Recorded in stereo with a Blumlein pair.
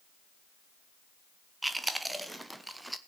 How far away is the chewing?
About 0.9 m.